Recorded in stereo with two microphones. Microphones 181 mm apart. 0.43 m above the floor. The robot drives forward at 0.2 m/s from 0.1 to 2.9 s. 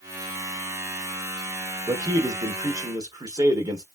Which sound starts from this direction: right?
A man speaking, at 1.9 s.